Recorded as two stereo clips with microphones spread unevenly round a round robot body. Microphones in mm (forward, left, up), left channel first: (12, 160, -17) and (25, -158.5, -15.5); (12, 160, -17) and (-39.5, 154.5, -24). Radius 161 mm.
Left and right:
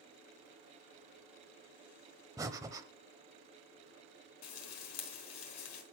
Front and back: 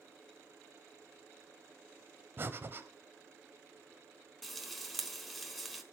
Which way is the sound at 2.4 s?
165° right.